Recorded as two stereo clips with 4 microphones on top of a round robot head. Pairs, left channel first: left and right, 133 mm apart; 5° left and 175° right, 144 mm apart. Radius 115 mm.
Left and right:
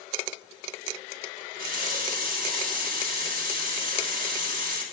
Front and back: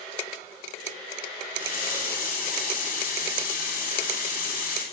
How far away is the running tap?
About 2.5 m.